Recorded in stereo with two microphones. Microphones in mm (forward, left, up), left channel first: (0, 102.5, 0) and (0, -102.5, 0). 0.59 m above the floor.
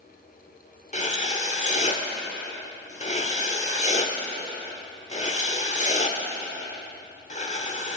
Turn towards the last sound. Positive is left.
turn(degrees=35)  # may be behind; listen again after turning